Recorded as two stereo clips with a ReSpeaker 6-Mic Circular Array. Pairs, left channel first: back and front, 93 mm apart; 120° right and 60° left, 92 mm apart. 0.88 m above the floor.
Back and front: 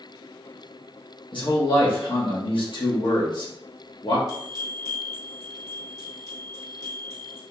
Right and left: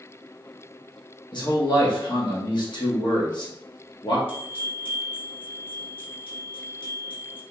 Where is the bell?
135° right, 1.6 m.